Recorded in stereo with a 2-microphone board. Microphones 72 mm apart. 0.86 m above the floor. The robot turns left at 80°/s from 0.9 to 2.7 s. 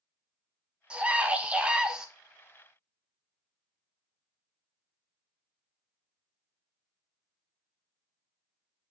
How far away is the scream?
About 0.5 m.